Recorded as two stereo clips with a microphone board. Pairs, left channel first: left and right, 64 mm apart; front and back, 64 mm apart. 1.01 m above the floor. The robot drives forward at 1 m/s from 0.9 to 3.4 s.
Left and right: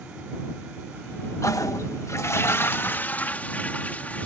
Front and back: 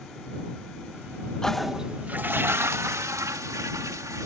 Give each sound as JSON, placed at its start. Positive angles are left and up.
{"t": 1.4, "sound": "a toilet flushing", "azimuth_deg": 75}